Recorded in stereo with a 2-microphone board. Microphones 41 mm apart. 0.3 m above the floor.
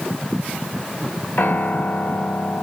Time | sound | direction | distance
1.4 | a piano | 60° left (ahead or behind) | 1.2 m